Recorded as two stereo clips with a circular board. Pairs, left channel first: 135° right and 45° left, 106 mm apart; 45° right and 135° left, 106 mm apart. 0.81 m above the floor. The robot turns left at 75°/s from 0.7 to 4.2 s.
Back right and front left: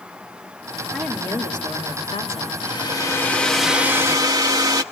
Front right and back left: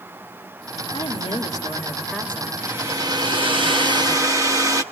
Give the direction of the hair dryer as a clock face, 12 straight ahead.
5 o'clock.